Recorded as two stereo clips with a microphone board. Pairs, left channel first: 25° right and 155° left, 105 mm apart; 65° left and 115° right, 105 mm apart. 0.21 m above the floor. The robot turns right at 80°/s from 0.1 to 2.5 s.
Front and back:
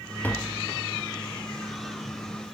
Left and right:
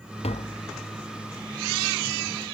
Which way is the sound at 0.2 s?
50° left.